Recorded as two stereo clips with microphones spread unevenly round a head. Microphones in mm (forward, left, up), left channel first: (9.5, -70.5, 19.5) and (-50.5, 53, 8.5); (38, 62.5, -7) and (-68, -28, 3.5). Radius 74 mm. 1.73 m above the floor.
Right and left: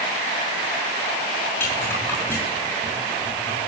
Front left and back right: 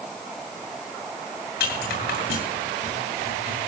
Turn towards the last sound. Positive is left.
turn(degrees=10)